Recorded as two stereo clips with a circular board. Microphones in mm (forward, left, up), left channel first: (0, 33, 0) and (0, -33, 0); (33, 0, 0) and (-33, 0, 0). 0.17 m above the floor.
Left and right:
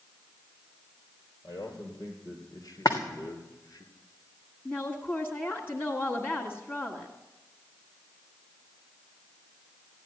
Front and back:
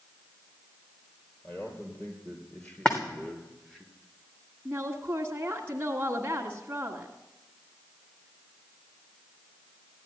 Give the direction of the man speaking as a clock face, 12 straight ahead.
10 o'clock.